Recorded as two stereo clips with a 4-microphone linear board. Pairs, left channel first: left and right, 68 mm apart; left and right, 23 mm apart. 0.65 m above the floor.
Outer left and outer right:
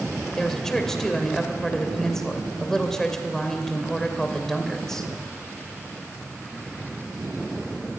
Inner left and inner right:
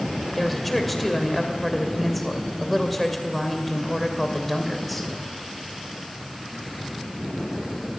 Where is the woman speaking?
5° left (ahead or behind), 2.5 m.